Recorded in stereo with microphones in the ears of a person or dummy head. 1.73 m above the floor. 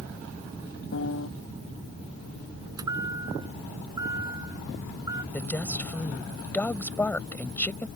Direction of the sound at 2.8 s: 25° right (ahead or behind).